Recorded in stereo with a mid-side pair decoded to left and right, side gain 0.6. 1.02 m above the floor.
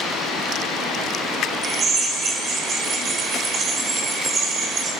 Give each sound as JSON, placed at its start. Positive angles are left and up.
{"t": 1.6, "sound": "a drill", "azimuth_deg": -35, "distance_m": 5.0}